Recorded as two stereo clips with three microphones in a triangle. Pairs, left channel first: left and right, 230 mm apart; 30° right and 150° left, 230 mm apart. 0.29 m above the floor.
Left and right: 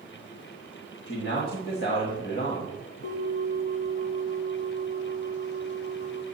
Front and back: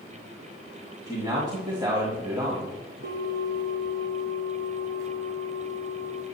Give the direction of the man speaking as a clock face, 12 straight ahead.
9 o'clock.